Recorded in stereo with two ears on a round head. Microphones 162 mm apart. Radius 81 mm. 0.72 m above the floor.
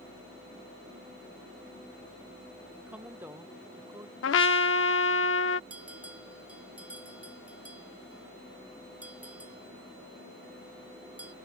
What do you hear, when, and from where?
2.8 s a woman speaking: 10° right (ahead or behind); by 4.1 s 15° right (ahead or behind)
4.2 s a trumpet: 80° left
5.7 s a bell: 10° right (ahead or behind)